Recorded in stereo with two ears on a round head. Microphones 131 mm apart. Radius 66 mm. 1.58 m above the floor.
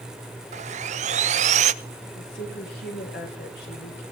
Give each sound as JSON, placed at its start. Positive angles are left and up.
{"t": 0.5, "sound": "sawing", "side_deg": -50, "distance_m": 0.8}
{"t": 2.1, "sound": "a woman speaking", "side_deg": 75, "distance_m": 6.0}